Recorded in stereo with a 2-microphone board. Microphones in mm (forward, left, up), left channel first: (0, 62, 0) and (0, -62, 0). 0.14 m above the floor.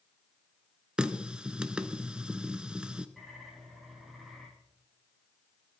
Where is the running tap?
10° right (ahead or behind), 1.0 m.